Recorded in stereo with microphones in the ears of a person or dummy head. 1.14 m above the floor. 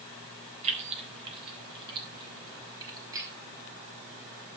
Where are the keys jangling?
40° right (ahead or behind), 3 m; by 3.3 s 25° right (ahead or behind), 5.5 m.